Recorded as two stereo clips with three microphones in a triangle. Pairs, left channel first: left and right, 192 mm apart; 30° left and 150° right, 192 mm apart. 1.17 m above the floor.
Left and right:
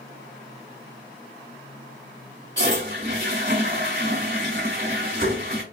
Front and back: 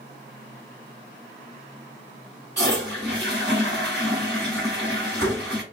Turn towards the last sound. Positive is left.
turn(degrees=-120)